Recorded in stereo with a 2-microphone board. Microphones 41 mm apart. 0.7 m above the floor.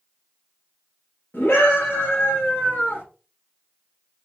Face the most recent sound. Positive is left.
turn(degrees=45)  # may be behind; listen again after turning